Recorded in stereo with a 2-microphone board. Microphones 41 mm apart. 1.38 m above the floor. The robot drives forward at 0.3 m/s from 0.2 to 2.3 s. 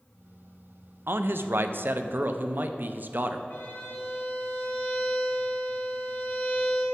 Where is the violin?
65° left (ahead or behind), 2.5 m.